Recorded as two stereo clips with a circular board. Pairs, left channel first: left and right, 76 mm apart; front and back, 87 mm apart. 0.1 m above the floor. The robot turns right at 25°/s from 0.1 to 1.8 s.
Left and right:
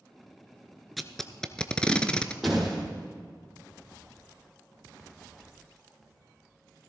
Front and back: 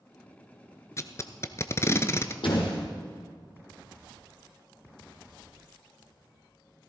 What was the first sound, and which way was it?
Tape being pulled, straight ahead.